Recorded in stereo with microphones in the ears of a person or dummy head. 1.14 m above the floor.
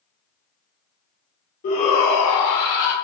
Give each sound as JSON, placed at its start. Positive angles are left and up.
{"t": 1.6, "sound": "a shout", "side_deg": 40, "distance_m": 0.9}